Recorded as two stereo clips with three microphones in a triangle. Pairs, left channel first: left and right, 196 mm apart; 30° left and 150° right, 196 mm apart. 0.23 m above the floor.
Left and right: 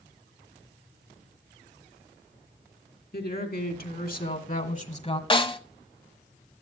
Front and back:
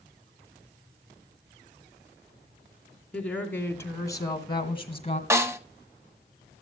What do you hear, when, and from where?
3.1 s a woman speaking: 110° left, 2.5 m; by 5.2 s 55° left, 1.6 m
5.3 s a snare drum: 140° left, 0.9 m